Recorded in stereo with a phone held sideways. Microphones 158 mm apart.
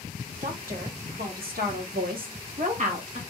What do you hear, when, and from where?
0.4 s a woman speaking: 55° right (ahead or behind), 1.3 m; by 3.2 s 45° right (ahead or behind), 1.1 m